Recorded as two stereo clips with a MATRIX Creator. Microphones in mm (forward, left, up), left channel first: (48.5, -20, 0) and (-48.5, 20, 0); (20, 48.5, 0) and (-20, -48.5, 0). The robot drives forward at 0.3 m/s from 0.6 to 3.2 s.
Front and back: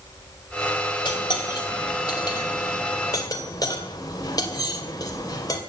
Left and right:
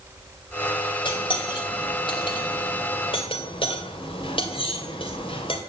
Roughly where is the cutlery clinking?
Ahead left.